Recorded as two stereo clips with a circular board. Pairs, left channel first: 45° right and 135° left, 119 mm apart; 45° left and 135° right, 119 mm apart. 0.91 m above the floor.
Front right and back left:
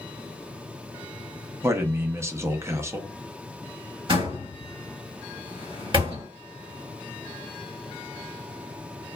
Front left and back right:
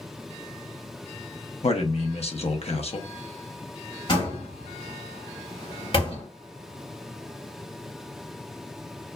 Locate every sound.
1.6 s a man speaking: 70° left, 0.7 m
4.1 s a door slam: 90° left, 1.7 m